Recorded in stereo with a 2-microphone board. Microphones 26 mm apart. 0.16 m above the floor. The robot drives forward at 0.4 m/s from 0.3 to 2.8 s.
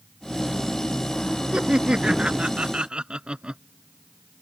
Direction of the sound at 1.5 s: 35° right (ahead or behind).